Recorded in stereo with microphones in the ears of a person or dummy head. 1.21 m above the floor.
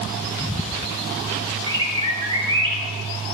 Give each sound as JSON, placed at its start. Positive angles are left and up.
{"t": 1.7, "sound": "a bird", "side_deg": -35, "distance_m": 3.5}